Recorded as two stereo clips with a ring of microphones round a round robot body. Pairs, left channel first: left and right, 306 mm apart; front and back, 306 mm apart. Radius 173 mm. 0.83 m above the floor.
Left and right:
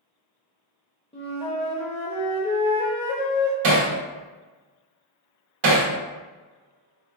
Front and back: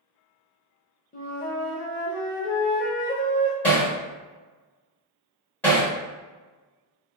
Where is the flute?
35° left, 0.6 m.